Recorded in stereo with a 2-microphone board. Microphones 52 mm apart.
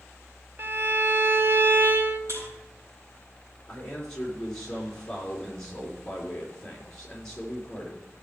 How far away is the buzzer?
About 5.5 m.